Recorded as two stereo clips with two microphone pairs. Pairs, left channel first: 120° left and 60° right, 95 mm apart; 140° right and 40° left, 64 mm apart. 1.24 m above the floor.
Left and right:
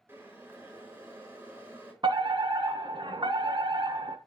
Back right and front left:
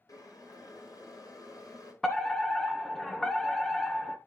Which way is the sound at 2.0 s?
55° right.